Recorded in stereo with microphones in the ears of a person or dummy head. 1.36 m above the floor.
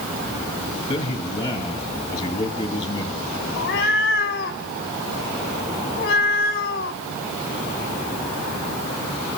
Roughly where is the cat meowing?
Left.